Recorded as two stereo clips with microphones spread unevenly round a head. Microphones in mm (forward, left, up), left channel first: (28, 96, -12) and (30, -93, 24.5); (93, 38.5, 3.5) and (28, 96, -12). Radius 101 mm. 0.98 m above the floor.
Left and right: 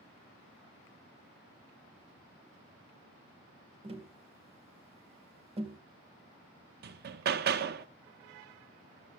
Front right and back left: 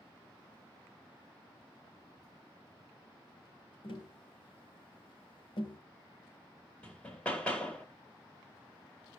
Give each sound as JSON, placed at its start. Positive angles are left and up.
{"t": 3.8, "sound": "tapping", "azimuth_deg": -35, "distance_m": 3.0}
{"t": 6.8, "sound": "hammering", "azimuth_deg": -130, "distance_m": 0.6}